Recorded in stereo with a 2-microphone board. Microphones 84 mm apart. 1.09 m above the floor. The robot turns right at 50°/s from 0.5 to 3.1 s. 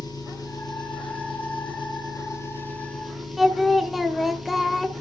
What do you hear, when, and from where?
0.0 s an engine running: 50° left, 5.5 m; by 5.0 s straight behind, 5.5 m
3.4 s singing: centre (ahead or behind), 1.5 m